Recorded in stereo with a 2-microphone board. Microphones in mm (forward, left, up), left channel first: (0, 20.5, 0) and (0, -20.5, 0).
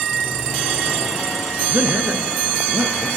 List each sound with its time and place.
1.7 s a man speaking: 35° right (ahead or behind), 1.8 m; by 3.1 s 60° right (ahead or behind), 2.5 m